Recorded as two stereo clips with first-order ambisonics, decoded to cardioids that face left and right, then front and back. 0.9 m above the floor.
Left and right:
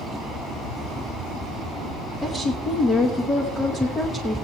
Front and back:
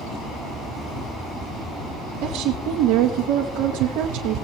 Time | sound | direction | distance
2.2 | a woman speaking | 160° left | 0.9 m